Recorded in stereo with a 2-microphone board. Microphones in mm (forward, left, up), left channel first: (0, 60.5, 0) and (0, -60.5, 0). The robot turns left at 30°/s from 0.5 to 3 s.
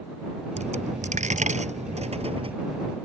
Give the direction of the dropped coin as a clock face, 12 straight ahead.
2 o'clock.